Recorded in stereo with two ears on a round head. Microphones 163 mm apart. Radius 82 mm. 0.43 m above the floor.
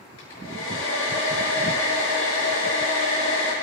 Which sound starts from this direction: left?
A hair dryer, at 0.2 s.